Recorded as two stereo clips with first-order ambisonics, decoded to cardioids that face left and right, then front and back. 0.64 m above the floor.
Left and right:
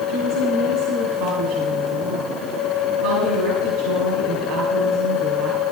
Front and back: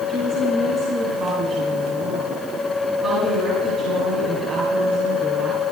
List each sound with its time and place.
0.1 s a woman speaking: 120° right, 7 m